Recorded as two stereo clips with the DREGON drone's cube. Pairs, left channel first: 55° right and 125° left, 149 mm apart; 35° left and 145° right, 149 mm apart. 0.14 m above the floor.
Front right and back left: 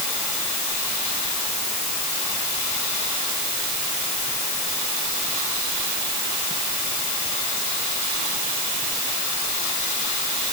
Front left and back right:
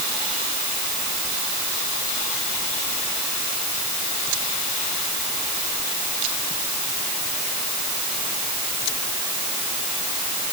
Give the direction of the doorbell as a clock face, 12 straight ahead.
I don't hear a doorbell.